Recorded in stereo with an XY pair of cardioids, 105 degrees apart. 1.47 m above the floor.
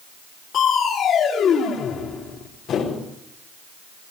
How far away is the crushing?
About 4.5 m.